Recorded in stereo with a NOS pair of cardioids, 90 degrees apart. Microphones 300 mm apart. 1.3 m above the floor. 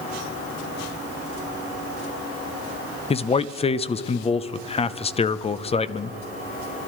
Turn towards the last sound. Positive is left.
turn(degrees=20)